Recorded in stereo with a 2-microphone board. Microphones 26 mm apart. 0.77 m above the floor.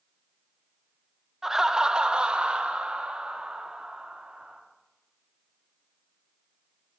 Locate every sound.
1.4 s laughter: 10° right (ahead or behind), 0.6 m; by 4.6 s 60° right (ahead or behind), 1.8 m